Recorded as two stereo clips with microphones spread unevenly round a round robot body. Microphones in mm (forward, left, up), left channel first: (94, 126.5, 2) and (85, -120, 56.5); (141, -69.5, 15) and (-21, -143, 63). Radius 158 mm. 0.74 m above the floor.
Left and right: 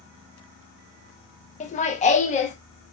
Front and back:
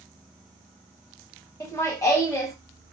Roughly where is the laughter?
Ahead left.